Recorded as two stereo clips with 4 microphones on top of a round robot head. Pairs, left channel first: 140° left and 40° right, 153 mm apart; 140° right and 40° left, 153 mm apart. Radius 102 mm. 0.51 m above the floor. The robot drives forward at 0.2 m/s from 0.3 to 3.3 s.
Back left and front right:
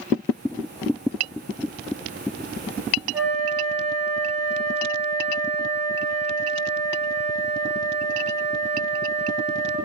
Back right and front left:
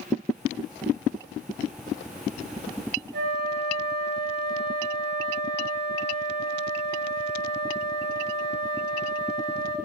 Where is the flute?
55° left, 0.6 m.